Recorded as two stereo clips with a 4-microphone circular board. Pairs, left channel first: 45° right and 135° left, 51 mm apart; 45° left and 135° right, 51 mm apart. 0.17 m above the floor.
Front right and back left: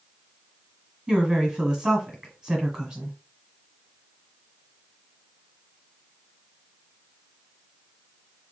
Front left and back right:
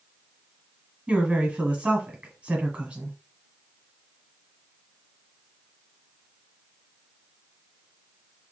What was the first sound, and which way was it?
A woman speaking, 165° right.